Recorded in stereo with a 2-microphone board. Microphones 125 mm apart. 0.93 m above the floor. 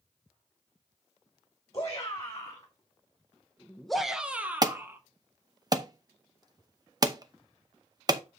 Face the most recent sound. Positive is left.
turn(degrees=-30)  # may be behind; listen again after turning